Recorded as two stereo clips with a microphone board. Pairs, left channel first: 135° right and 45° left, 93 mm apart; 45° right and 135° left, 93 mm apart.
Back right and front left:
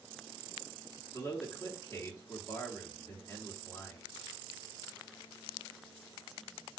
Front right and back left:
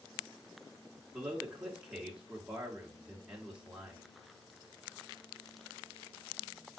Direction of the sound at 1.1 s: 155° right.